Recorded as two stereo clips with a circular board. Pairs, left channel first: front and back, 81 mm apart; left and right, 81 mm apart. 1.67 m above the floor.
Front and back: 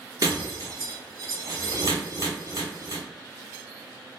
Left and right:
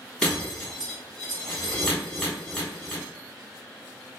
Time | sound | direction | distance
0.2 | breaking glass | 165° left | 1.2 m